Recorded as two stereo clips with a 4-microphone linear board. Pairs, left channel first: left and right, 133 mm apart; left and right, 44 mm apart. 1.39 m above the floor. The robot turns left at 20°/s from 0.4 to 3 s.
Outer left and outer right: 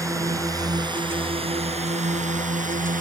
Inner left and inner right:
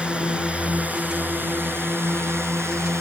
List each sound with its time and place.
0.0 s a drone: 25° right (ahead or behind); by 3.0 s 80° right